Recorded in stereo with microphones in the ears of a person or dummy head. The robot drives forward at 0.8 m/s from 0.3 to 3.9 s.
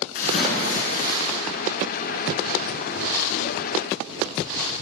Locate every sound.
0.1 s a splash: 45° left (ahead or behind), 6.5 m; by 1.4 s 40° left (ahead or behind), 7 m